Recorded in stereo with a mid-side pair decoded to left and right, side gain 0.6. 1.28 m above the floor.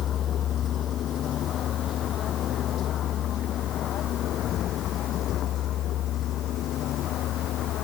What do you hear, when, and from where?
0.0 s a vehicle: 50° left; by 7.8 s 55° left